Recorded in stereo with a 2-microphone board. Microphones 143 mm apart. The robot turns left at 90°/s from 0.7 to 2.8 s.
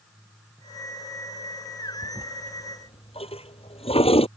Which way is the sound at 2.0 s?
30° right (ahead or behind).